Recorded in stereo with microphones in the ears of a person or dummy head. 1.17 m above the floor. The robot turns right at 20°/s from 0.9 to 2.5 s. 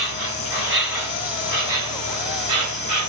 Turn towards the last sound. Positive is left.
turn(degrees=-140)